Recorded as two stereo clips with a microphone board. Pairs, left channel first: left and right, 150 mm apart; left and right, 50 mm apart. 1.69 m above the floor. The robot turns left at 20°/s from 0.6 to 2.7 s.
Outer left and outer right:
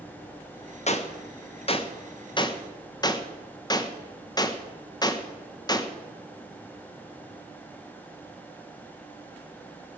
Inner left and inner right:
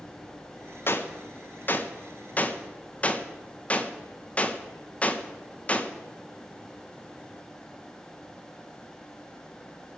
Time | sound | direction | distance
0.9 | a gunshot | 50° left (ahead or behind) | 1.0 m